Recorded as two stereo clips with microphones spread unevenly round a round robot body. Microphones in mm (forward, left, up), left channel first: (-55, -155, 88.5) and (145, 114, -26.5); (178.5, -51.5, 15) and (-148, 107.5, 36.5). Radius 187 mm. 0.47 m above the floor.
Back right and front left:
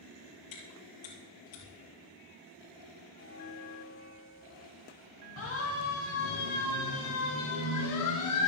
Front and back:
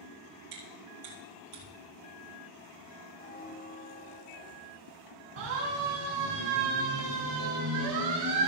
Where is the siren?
175° left, 5.5 m; by 8.5 s 170° right, 7 m.